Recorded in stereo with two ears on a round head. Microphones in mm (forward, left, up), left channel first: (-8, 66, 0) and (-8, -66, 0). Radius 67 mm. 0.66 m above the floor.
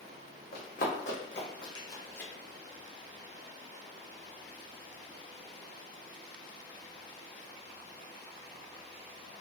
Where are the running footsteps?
65° left (ahead or behind), 1.5 m; by 2.3 s 10° left (ahead or behind), 1.2 m.